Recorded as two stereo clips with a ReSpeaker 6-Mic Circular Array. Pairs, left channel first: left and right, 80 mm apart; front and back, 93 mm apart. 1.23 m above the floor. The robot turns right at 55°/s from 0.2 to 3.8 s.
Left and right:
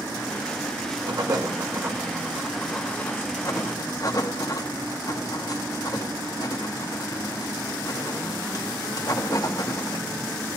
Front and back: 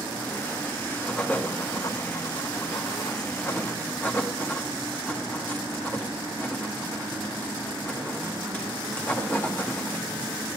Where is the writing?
85° right, 0.9 m; by 10.1 s 65° left, 0.9 m.